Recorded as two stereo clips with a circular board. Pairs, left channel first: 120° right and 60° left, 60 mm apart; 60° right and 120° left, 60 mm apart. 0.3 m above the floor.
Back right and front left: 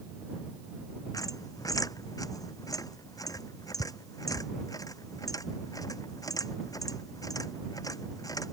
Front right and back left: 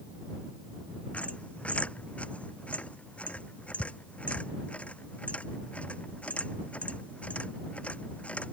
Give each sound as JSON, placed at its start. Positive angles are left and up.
{"t": 1.1, "sound": "a squeak", "azimuth_deg": -130}